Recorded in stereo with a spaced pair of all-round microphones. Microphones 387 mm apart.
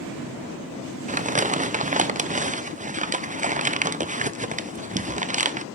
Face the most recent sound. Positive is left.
turn(degrees=-20)  # may be behind; listen again after turning